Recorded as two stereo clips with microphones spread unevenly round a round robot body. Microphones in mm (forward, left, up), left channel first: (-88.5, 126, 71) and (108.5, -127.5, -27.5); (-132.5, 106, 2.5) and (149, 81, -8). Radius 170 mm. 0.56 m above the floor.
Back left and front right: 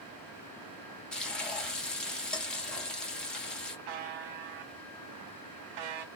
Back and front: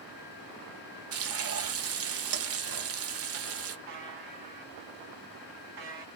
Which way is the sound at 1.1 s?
40° left.